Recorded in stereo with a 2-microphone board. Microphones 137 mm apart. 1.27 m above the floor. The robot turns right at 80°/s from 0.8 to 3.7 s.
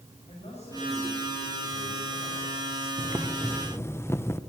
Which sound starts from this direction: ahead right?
Boiling, at 3.0 s.